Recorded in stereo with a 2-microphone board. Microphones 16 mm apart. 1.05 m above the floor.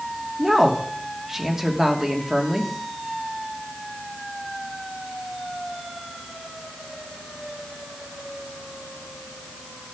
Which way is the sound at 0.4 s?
30° right (ahead or behind).